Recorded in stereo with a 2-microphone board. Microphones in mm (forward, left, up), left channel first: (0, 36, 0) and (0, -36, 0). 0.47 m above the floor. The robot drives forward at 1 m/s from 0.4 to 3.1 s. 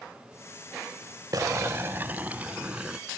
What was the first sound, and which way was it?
Boiling, 55° right (ahead or behind).